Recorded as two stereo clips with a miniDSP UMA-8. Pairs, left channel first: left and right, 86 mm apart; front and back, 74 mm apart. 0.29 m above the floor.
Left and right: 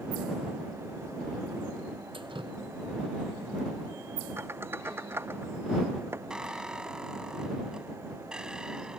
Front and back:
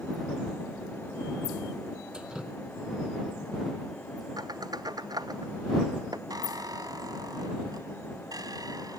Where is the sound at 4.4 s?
155° right.